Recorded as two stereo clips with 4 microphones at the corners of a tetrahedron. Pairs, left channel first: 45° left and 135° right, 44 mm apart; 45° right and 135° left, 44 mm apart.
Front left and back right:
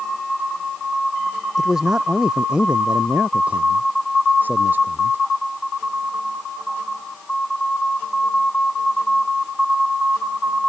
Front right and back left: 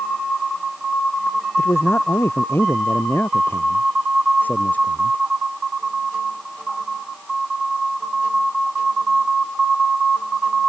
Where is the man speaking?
55° right; by 5.2 s 100° right.